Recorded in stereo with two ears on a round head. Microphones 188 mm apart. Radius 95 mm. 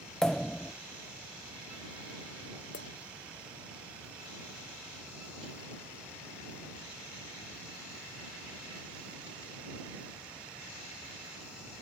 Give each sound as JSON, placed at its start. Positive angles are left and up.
{"t": 0.2, "sound": "a pop", "side_deg": 5}
{"t": 2.7, "sound": "a clink", "side_deg": 55}